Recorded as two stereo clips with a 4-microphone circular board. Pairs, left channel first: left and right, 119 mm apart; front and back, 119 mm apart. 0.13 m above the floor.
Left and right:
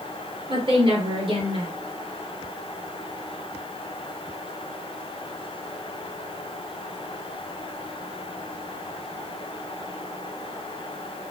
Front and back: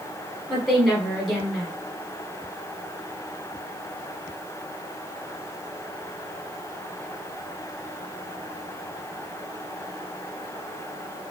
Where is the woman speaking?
85° right, 2.0 m.